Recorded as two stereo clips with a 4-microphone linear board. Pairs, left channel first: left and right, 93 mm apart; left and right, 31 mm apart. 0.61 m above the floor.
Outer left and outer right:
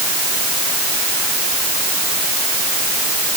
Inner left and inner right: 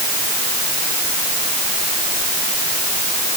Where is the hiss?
I don't hear a hiss.